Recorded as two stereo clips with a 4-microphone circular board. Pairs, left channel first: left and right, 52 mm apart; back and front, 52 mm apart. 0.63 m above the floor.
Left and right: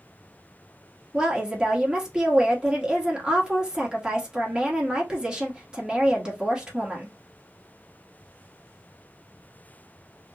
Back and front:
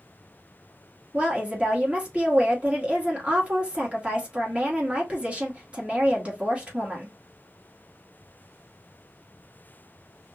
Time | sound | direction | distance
1.1 | a woman speaking | 35° right | 1.2 m